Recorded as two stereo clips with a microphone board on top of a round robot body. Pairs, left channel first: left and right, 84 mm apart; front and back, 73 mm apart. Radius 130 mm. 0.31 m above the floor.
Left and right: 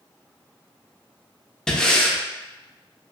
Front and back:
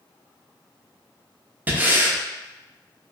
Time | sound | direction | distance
1.7 | breathing | 160° left | 0.7 m